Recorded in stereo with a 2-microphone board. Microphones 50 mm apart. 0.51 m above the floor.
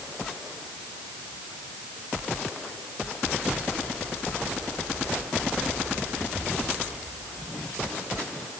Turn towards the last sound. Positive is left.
No sound to turn to.